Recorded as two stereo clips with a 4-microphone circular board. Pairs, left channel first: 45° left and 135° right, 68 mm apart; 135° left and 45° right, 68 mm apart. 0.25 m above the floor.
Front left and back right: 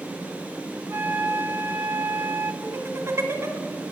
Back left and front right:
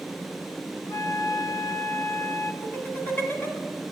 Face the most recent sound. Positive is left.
turn(degrees=-170)